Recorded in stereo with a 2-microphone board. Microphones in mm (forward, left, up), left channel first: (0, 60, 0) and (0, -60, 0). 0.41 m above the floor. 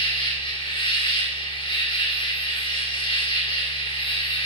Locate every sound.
0.0 s an insect: 45° left (ahead or behind), 3.5 m